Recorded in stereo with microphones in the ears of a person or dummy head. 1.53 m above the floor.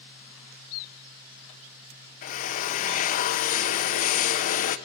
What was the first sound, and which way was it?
A drill, 45° left (ahead or behind).